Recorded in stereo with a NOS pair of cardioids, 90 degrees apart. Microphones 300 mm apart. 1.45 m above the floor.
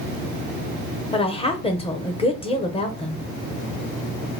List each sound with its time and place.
1.1 s a woman speaking: 20° left, 0.8 m